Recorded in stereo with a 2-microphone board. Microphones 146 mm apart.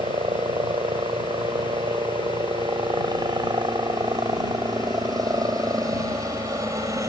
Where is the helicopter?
35° right (ahead or behind); by 7.1 s 20° right (ahead or behind).